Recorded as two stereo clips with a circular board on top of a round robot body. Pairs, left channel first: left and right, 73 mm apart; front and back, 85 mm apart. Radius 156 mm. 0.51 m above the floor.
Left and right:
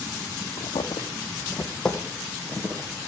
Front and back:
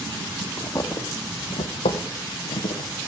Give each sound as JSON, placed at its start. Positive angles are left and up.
{"t": 0.6, "sound": "footsteps", "azimuth_deg": 70, "distance_m": 1.6}